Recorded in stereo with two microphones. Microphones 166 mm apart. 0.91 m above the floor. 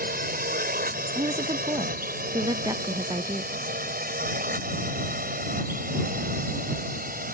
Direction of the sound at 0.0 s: 60° right (ahead or behind).